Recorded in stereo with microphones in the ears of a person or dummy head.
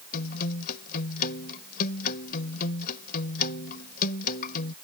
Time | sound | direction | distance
0.1 | a guitar | 55° left (ahead or behind) | ?